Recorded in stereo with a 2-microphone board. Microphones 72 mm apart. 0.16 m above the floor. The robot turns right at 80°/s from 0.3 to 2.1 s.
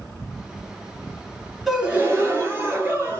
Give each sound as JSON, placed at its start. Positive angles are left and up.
{"t": 1.7, "sound": "a gasp", "azimuth_deg": 180, "distance_m": 2.5}